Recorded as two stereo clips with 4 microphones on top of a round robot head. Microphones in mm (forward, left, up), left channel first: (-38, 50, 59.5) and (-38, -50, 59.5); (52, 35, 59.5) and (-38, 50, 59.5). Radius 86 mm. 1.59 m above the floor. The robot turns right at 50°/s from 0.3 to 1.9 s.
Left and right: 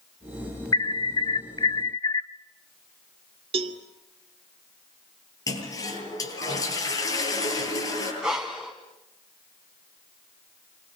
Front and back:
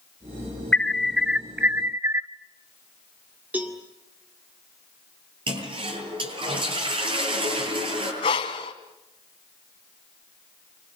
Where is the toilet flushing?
145° left, 9 m.